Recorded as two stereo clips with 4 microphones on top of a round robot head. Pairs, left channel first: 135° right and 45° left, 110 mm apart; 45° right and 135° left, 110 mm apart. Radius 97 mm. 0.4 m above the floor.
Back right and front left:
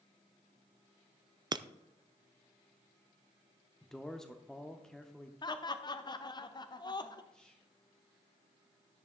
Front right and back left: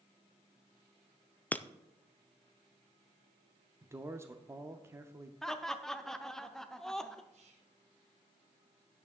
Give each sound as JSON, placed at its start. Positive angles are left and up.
{"t": 1.5, "sound": "breaking glass", "azimuth_deg": 25, "distance_m": 0.5}
{"t": 3.8, "sound": "a man speaking", "azimuth_deg": 145, "distance_m": 0.9}
{"t": 5.4, "sound": "laughter", "azimuth_deg": -130, "distance_m": 1.0}
{"t": 7.3, "sound": "whispering", "azimuth_deg": 140, "distance_m": 3.0}